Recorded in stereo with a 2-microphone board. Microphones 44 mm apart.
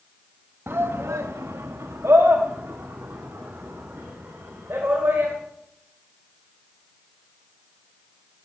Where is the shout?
55° right (ahead or behind), 1.1 m.